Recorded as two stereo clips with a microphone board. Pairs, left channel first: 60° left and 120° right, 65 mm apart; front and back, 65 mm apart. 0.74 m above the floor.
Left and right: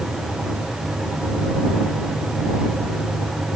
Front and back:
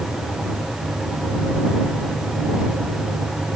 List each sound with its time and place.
Only background noise.